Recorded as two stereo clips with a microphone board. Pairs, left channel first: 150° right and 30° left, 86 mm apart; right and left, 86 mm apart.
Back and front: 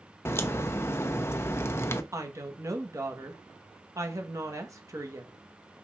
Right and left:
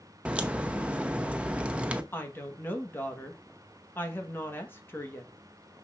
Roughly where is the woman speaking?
Ahead right.